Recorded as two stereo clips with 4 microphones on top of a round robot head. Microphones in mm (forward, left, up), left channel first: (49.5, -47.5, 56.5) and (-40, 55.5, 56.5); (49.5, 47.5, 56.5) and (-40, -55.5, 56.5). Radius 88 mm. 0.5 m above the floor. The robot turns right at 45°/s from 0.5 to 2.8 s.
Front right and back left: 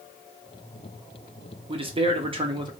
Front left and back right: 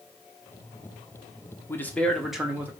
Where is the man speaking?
115° left, 1.1 m; by 2.7 s 160° left, 1.1 m.